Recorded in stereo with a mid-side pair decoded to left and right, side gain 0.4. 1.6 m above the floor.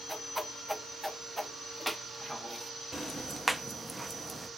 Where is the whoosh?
5° right, 0.6 m.